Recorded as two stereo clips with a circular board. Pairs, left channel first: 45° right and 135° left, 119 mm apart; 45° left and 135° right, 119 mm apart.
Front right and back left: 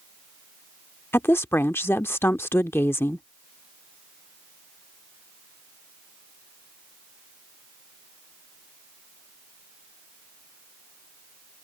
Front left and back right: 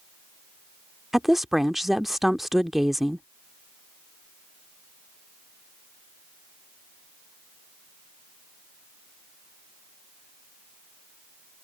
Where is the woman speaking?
50° right.